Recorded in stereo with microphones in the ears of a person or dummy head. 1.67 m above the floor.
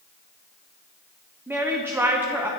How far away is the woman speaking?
About 0.6 m.